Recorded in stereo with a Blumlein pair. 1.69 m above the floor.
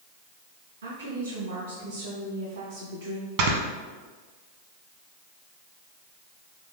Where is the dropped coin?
No dropped coin in this recording.